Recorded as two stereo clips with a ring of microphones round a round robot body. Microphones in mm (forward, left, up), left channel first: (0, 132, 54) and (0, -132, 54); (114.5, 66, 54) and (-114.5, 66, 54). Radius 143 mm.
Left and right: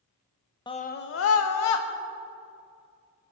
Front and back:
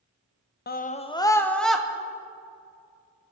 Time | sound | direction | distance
0.7 | a scream | 20° left | 1.1 m